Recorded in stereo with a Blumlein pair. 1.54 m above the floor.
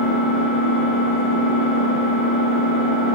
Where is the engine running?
35° right, 1.5 m.